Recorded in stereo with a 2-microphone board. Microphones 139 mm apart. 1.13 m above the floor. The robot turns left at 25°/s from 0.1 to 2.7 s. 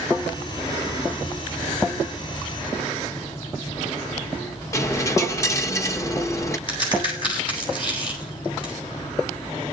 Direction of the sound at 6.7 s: 40° left (ahead or behind).